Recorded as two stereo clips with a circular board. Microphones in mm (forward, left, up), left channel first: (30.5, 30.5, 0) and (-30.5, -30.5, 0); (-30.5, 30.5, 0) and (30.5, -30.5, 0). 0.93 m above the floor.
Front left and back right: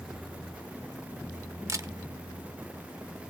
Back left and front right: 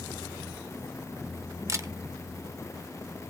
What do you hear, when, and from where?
1.7 s a camera shutter: 90° right, 1.0 m